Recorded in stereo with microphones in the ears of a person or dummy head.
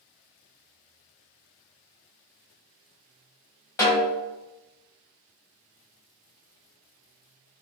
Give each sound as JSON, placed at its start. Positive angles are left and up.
{"t": 3.8, "sound": "a snare drum", "side_deg": 15, "distance_m": 1.0}